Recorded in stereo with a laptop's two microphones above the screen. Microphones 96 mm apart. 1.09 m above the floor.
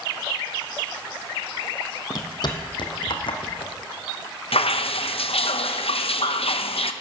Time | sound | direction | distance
2.1 | footsteps | 45° left (ahead or behind) | 1.5 m
4.5 | dripping | 80° left | 0.6 m